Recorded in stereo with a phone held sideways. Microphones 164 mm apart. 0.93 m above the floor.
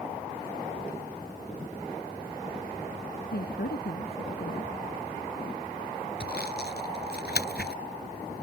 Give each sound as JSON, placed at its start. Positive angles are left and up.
{"t": 3.3, "sound": "a woman speaking", "side_deg": 75}
{"t": 6.2, "sound": "sawing", "side_deg": 80}